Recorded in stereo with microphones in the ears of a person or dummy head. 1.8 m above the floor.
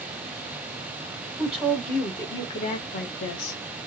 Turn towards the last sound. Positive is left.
turn(degrees=50)  # may be behind; listen again after turning